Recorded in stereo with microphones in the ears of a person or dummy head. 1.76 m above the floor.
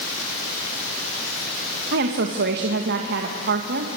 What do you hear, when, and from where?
1.9 s a woman speaking: 60° right (ahead or behind), 1.8 m